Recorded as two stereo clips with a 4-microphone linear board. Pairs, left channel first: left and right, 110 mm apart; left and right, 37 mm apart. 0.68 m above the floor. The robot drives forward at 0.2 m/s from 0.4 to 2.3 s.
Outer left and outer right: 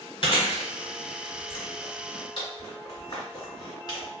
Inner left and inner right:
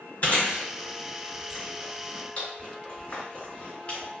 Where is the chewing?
55° left (ahead or behind), 1.2 m; by 4.0 s 40° left (ahead or behind), 1.4 m.